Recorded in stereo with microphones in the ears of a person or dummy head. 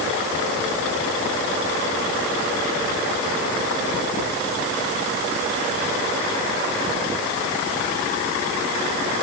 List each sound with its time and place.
Only background noise.